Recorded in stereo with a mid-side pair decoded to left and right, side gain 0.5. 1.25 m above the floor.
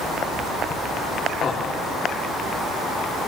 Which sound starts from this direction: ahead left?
Laughter, at 1.4 s.